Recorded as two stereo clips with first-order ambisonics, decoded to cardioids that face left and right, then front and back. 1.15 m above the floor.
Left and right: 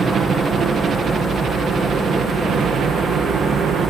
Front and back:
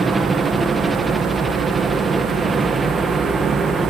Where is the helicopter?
110° right; by 3.9 s 105° right.